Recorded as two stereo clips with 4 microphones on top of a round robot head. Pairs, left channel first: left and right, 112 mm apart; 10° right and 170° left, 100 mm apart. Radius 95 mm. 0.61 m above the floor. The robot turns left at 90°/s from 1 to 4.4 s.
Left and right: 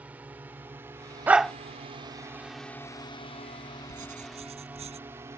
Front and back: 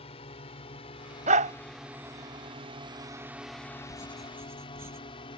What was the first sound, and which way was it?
A drone, 10° right.